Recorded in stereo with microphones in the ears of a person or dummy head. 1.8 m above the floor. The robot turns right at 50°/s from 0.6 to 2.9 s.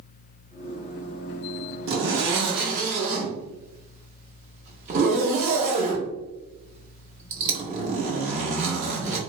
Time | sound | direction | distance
1.9 | a zipper | 95° right | 1.0 m